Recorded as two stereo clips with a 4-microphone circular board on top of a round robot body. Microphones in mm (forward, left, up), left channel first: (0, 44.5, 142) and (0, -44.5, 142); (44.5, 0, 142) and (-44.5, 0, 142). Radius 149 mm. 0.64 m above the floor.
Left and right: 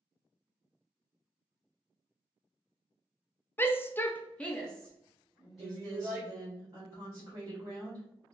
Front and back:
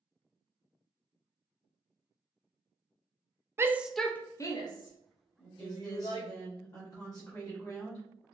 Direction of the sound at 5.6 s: 45° right.